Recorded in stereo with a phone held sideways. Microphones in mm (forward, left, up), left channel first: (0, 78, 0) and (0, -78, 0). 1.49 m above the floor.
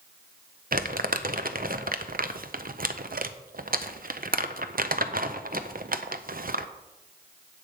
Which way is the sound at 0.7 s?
70° right (ahead or behind).